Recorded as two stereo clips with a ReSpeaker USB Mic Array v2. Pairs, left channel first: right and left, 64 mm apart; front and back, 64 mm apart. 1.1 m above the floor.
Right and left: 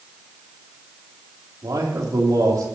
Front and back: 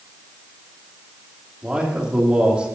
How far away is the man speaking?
About 2.5 m.